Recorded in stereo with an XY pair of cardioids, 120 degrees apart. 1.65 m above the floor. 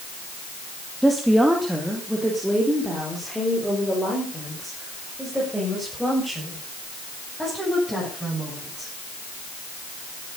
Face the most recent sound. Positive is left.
turn(degrees=0)